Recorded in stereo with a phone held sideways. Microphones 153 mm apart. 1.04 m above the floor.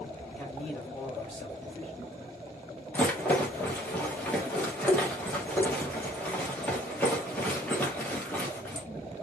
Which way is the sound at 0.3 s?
5° left (ahead or behind).